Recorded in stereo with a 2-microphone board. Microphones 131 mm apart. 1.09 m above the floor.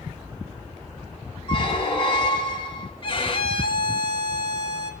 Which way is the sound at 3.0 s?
40° left (ahead or behind).